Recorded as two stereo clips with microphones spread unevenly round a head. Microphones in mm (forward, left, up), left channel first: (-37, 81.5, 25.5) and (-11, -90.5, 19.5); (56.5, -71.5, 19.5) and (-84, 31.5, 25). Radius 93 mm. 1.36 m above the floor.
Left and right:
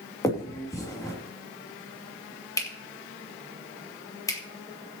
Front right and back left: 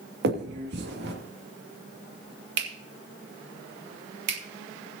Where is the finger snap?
170° left, 2.5 m.